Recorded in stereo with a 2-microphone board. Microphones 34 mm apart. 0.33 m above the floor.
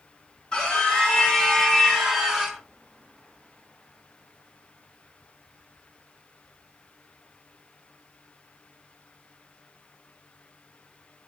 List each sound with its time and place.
0.5 s a scream: 25° left (ahead or behind), 1.5 m; by 2.6 s 10° right (ahead or behind), 1.6 m